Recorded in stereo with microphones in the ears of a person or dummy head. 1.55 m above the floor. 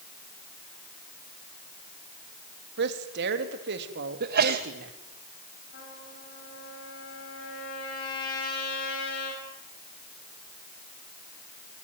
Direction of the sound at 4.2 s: 45° right (ahead or behind).